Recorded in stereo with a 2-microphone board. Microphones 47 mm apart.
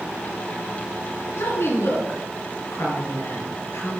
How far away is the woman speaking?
About 3 m.